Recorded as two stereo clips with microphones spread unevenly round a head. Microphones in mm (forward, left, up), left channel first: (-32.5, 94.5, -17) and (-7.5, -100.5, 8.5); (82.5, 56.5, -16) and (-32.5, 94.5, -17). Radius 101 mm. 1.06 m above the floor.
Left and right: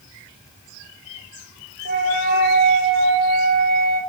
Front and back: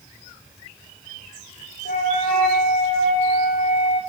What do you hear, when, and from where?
1.9 s a flute: 35° right, 5.5 m